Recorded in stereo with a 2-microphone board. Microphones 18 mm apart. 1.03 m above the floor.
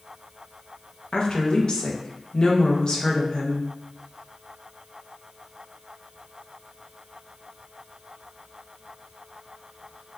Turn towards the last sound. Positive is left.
turn(degrees=50)  # may be behind; listen again after turning